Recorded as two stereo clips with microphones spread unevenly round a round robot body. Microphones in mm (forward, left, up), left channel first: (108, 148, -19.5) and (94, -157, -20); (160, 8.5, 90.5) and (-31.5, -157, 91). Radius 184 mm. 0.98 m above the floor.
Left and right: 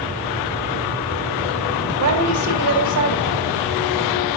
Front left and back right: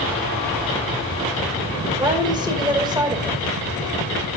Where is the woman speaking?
65° right, 5 m.